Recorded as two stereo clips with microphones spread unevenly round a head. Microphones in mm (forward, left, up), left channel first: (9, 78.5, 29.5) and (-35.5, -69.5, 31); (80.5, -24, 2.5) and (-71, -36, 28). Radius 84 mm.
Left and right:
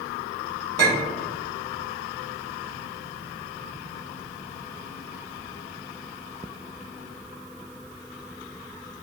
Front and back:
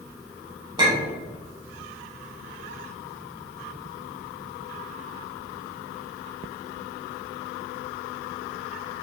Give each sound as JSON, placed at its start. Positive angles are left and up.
{"t": 0.8, "sound": "a clink", "azimuth_deg": -125, "distance_m": 1.2}